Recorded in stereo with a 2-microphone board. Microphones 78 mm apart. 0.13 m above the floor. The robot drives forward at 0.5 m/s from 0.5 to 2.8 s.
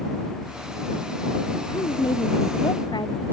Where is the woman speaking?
70° left (ahead or behind).